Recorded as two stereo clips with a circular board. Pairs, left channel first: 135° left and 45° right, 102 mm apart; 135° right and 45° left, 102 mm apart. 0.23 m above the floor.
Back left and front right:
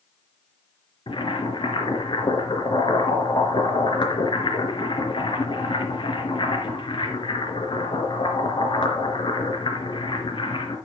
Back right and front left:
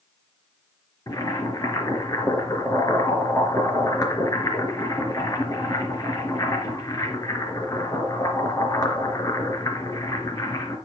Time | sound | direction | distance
1.1 | boiling | 170° left | 3.5 m